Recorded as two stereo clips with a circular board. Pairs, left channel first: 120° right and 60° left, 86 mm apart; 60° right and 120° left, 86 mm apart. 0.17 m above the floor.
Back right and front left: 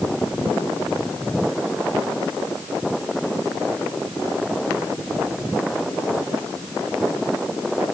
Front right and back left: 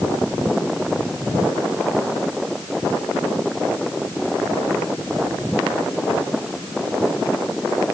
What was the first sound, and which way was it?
Only background noise.